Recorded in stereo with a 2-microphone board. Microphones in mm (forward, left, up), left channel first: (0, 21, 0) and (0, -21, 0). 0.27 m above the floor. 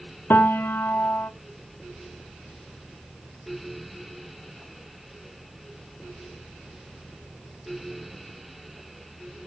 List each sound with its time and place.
0.3 s a piano: 60° left (ahead or behind), 0.7 m